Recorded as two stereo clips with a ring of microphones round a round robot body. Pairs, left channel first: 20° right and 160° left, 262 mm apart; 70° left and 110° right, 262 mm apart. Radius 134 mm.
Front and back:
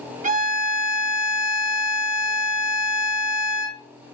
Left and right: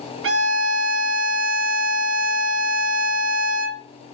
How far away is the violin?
About 1.2 m.